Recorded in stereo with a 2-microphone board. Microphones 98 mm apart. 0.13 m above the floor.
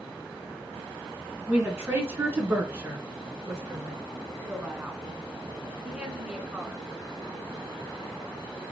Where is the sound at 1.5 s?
20° right (ahead or behind), 1.4 m; by 4.0 s 30° right (ahead or behind), 2 m.